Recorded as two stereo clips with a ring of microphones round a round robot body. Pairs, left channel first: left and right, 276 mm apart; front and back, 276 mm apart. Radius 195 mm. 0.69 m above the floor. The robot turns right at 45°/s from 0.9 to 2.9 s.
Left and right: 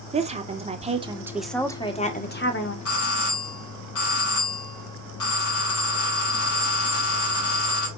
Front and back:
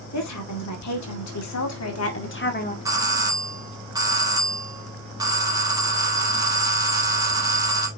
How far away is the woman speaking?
About 2 m.